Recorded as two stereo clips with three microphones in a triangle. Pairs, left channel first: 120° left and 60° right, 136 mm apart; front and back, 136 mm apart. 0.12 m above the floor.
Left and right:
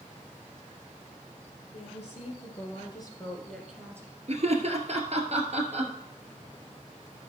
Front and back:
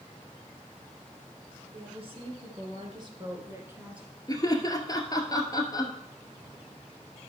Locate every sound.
1.7 s a woman speaking: 140° left, 3.5 m; by 4.2 s 95° right, 1.8 m
4.3 s laughter: 55° right, 1.8 m